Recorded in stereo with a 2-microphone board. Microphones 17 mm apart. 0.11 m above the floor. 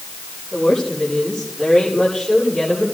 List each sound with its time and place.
0.5 s a woman speaking: 45° left (ahead or behind), 9 m; by 2.9 s 55° left (ahead or behind), 9.5 m